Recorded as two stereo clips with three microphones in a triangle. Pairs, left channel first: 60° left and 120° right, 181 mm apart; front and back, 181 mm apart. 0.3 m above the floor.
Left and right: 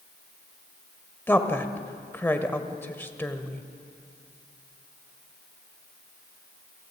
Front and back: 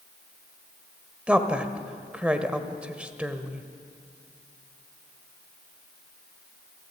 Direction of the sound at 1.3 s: 110° left.